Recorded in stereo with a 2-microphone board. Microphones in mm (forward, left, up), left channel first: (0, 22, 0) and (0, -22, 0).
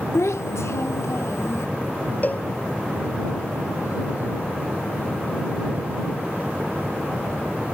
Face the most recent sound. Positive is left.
turn(degrees=40)  # may be behind; listen again after turning